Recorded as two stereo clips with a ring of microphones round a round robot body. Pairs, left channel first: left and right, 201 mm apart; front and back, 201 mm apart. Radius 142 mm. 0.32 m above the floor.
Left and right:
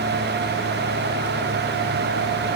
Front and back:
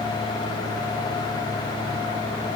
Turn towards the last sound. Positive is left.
No sound to turn to.